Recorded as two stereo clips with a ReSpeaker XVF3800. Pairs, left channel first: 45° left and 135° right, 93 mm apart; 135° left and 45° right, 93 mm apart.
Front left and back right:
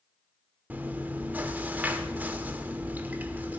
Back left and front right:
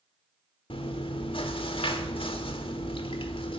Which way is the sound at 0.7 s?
155° left.